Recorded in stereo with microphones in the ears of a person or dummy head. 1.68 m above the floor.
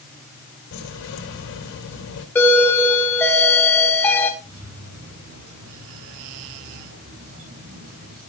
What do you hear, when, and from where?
0.7 s keys jangling: 80° left, 4.5 m
2.4 s a doorbell: 5° left (ahead or behind), 1.9 m
4.4 s keys jangling: 85° right, 10 m